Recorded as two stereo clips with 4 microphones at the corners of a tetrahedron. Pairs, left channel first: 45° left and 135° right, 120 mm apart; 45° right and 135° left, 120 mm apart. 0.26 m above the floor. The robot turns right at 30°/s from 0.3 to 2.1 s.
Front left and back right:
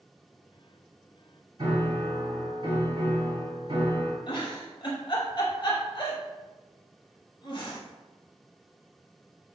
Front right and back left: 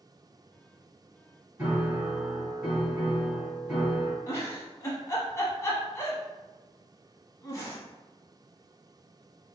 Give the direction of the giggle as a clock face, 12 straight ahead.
12 o'clock.